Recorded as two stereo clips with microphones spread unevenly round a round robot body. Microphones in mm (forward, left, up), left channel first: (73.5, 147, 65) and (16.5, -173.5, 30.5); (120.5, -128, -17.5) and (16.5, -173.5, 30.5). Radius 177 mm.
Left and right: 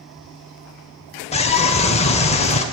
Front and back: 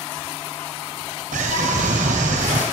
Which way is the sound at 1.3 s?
150° left.